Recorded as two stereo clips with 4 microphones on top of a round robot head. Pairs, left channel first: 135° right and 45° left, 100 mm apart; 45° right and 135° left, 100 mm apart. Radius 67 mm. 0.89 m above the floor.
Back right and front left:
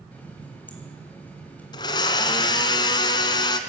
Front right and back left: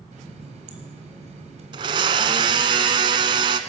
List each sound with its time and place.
0.1 s a running tap: 150° left, 4.5 m
1.7 s a blender: straight behind, 1.7 m